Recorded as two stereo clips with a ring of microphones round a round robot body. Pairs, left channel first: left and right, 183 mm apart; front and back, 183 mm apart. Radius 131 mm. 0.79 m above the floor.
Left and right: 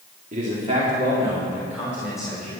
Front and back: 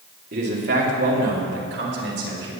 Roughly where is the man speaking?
Behind right.